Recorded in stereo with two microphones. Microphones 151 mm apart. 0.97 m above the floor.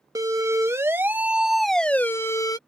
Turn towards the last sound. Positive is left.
turn(degrees=25)  # may be behind; listen again after turning